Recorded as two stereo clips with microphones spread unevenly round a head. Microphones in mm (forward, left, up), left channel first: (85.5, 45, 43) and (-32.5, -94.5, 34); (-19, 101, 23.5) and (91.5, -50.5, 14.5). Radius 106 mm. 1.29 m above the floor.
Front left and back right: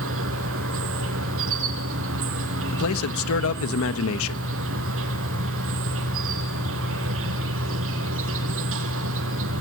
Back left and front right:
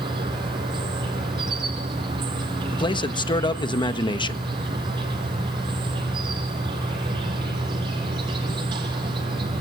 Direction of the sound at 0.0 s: 125° right.